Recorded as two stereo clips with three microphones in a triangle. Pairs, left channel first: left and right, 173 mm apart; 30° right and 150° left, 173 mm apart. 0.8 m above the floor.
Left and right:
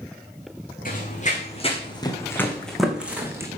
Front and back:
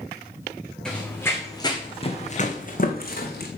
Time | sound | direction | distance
0.8 | running footsteps | 55° left | 2.5 m